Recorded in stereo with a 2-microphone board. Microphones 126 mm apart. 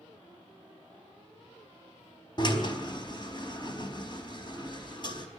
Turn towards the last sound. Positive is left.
turn(degrees=40)  # may be behind; listen again after turning